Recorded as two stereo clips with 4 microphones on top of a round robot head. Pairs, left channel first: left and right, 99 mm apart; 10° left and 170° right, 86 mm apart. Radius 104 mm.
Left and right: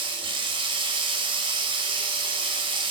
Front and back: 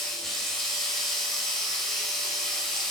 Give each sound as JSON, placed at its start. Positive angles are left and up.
{"t": 0.0, "sound": "running water", "azimuth_deg": -70, "distance_m": 1.5}